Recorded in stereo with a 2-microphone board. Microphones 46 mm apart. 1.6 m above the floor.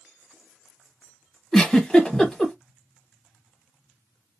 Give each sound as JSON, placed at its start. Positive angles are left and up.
{"t": 1.5, "sound": "a giggle", "side_deg": 15, "distance_m": 1.0}